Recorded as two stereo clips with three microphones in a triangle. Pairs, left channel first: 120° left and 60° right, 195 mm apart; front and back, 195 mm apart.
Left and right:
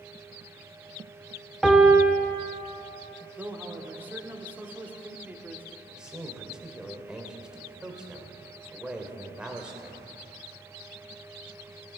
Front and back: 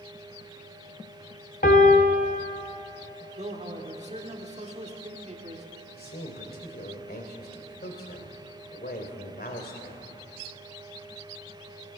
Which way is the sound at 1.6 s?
30° left.